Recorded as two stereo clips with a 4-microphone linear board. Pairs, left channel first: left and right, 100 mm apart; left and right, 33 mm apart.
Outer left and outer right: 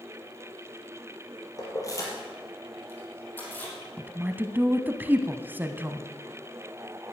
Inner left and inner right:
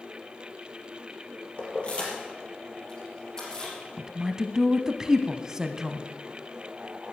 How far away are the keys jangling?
About 3.5 m.